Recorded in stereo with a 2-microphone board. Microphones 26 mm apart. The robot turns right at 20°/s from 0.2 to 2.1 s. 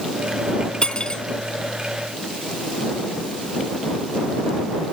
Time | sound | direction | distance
0.8 | cutlery clinking | 35° left (ahead or behind) | ?